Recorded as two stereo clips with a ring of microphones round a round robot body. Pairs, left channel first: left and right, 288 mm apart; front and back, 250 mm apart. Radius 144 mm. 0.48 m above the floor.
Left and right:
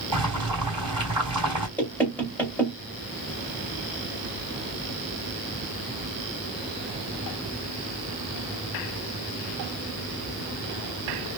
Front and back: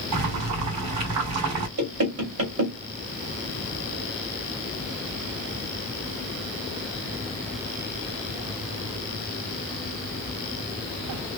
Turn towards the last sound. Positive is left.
turn(degrees=175)